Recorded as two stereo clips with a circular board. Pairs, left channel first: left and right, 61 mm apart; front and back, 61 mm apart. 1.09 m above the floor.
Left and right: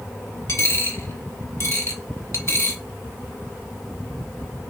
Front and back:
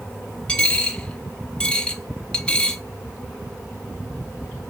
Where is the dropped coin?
70° left, 1.4 m.